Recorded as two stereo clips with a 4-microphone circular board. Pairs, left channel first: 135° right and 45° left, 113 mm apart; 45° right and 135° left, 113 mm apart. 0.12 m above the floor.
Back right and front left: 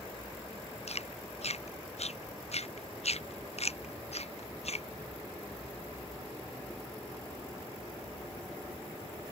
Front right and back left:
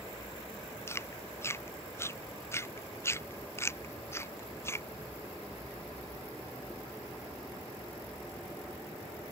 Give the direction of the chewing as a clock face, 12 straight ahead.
4 o'clock.